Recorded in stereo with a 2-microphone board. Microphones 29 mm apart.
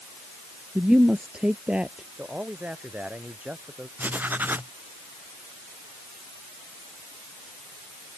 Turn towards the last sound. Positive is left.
turn(degrees=-85)